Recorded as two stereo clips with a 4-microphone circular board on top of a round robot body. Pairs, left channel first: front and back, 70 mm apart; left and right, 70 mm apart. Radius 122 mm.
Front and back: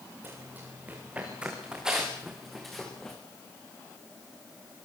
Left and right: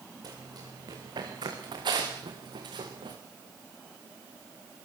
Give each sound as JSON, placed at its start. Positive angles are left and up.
{"t": 0.2, "sound": "running footsteps", "azimuth_deg": -115, "distance_m": 6.5}